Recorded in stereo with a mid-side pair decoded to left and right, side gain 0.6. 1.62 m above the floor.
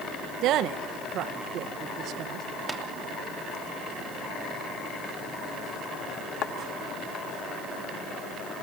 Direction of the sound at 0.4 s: 65° right.